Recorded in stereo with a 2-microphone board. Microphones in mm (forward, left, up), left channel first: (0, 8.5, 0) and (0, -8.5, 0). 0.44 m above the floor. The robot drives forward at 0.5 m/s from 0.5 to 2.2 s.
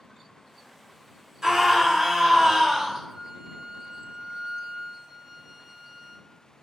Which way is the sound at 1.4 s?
25° right (ahead or behind).